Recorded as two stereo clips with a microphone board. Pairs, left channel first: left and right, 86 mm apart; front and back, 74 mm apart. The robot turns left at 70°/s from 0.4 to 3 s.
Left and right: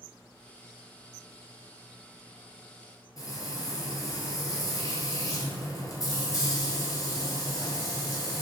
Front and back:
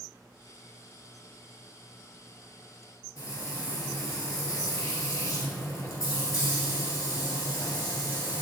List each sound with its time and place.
3.2 s frying: 45° left, 1.4 m